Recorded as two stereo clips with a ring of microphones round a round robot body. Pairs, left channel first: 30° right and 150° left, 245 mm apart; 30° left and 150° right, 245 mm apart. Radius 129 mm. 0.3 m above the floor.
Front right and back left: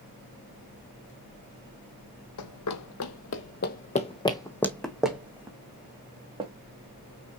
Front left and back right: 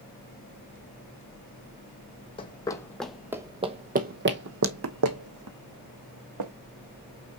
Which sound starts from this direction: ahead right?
Running footsteps, at 2.4 s.